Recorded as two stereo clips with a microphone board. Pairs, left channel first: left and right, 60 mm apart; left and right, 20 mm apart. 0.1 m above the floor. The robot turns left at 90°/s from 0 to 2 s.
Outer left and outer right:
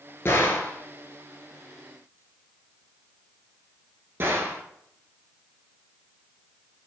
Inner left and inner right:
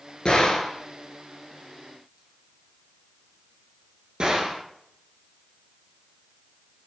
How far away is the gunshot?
About 0.6 m.